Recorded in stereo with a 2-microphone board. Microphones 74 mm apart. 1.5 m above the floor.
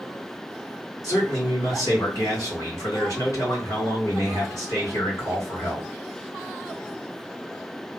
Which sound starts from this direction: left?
A man speaking, at 1.0 s.